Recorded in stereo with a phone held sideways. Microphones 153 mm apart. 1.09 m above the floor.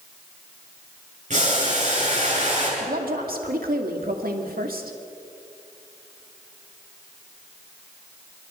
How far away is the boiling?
About 8.5 m.